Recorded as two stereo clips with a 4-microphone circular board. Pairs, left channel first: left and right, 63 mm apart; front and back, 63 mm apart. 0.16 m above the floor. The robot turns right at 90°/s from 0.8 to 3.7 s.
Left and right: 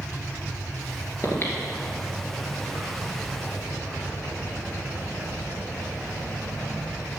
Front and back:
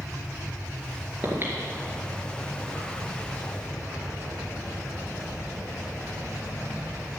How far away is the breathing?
About 2.5 m.